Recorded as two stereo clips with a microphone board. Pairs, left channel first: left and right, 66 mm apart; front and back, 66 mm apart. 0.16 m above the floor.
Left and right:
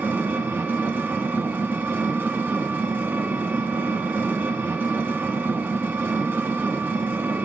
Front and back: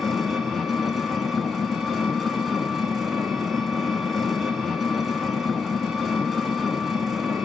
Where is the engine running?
90° right, 0.9 m.